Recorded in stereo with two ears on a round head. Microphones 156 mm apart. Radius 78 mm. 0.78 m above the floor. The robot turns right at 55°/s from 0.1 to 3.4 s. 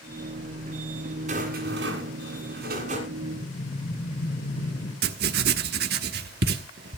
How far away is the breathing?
About 3.5 m.